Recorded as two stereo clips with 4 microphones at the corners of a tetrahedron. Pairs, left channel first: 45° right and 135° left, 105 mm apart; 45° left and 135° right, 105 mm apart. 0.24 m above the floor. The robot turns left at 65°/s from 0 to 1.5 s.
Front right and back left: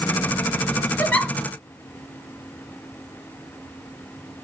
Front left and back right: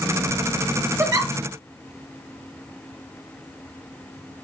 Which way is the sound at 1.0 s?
100° right.